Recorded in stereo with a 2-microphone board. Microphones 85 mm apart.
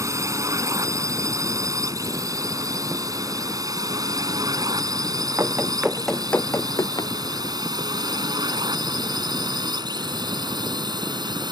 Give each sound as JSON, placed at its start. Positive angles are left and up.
{"t": 0.0, "sound": "a drone", "side_deg": -40}
{"t": 5.4, "sound": "running footsteps", "side_deg": -35}